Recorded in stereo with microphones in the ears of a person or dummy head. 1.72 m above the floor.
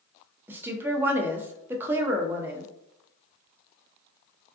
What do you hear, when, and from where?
0.5 s a woman speaking: 15° right (ahead or behind), 0.5 m